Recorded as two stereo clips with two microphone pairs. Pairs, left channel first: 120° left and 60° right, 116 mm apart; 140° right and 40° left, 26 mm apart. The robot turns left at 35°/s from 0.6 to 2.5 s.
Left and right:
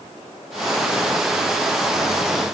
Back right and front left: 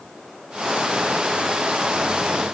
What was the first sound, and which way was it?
Only background noise.